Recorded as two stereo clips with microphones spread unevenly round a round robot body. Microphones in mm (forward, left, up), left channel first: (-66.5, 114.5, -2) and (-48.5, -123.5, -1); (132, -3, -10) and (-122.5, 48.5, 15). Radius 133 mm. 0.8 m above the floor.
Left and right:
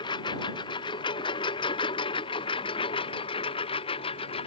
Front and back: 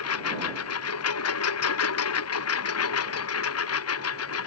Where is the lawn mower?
20° left; by 4.5 s 25° left.